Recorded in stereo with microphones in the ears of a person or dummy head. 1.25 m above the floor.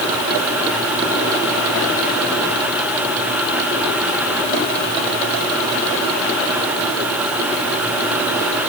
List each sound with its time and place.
Only background noise.